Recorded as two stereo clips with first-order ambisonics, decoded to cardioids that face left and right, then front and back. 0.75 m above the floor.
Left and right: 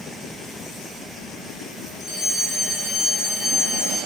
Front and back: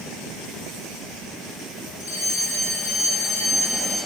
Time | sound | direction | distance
2.0 | a fire alarm | 5° right | 10 m